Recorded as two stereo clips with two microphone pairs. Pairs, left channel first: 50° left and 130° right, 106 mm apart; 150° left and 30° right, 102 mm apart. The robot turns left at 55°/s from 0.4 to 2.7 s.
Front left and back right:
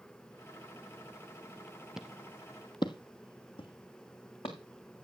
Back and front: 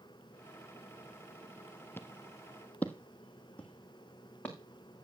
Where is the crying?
No crying in this recording.